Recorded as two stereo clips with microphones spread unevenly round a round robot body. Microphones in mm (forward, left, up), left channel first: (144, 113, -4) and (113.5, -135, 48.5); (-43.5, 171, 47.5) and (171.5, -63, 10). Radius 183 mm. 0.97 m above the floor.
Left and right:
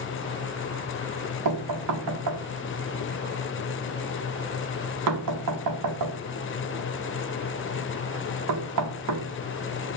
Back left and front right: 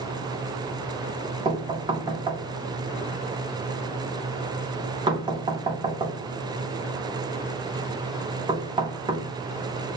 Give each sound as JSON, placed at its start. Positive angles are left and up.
{"t": 1.4, "sound": "knocking", "azimuth_deg": -125, "distance_m": 0.8}